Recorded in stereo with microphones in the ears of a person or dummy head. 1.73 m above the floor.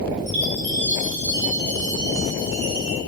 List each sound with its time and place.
0.3 s a chime: 60° right (ahead or behind), 5 m